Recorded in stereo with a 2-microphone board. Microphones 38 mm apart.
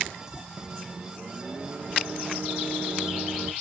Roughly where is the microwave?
Right.